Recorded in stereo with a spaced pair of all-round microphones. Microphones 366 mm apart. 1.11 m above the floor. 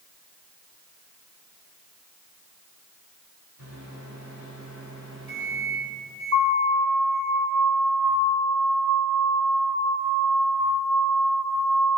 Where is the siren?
40° right (ahead or behind), 3 m; by 11.9 s 85° right, 6.5 m.